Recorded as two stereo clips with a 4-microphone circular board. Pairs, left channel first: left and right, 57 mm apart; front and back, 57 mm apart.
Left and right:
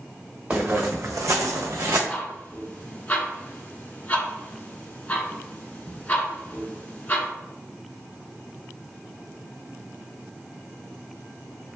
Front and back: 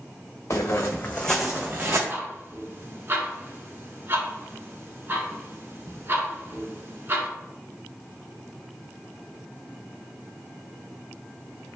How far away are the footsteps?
About 0.9 m.